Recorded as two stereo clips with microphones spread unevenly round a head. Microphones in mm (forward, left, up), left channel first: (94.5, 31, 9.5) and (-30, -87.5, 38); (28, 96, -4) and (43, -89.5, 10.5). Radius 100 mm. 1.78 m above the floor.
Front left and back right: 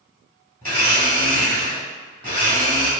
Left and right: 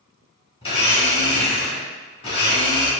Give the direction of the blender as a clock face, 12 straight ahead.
7 o'clock.